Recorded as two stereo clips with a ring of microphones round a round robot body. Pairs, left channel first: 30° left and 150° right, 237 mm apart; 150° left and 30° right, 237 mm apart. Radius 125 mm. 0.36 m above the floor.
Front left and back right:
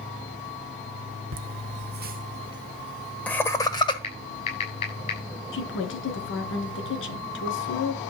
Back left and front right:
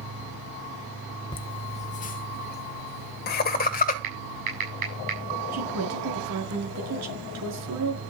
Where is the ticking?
I don't hear ticking.